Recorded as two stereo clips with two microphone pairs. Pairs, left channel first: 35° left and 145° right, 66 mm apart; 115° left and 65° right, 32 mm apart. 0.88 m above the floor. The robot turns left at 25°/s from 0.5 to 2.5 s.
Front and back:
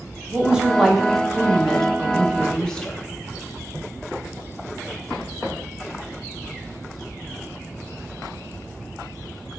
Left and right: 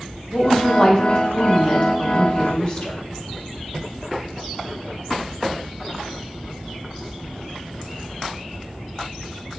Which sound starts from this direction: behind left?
A woman speaking, at 0.3 s.